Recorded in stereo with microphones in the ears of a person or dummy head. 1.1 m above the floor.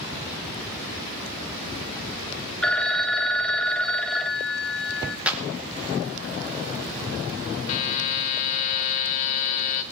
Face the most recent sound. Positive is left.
turn(degrees=30)  # may be behind; listen again after turning